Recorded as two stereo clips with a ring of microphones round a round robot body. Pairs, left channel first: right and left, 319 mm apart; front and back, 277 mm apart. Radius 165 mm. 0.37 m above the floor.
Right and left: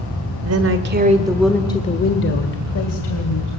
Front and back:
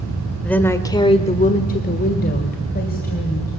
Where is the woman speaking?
85° left, 1.6 m; by 3.5 s 60° right, 3 m.